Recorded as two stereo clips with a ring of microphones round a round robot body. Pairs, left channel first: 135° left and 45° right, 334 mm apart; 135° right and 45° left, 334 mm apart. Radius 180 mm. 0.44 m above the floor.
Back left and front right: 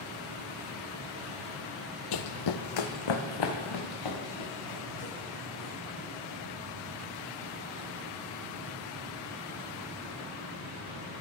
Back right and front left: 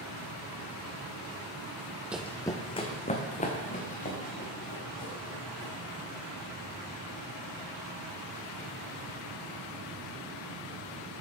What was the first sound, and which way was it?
Running footsteps, 130° left.